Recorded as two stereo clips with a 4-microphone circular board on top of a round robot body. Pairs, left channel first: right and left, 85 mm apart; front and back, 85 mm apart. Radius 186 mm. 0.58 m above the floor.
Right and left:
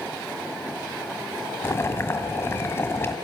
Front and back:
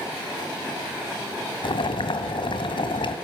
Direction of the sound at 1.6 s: 25° right.